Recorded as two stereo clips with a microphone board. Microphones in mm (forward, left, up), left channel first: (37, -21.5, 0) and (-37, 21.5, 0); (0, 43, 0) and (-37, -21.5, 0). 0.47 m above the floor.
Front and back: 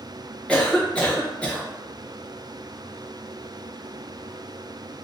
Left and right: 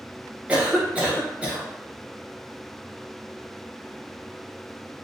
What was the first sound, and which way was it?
A cough, 80° right.